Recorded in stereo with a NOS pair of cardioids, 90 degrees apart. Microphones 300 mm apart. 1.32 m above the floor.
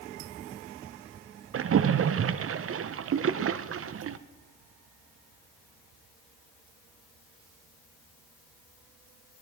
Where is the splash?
45° right, 0.8 m.